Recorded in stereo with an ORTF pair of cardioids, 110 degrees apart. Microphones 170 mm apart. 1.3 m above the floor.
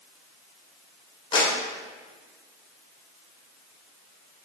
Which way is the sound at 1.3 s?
30° left.